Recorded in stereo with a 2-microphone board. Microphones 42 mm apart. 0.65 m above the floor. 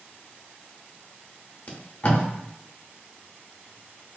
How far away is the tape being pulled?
About 0.8 m.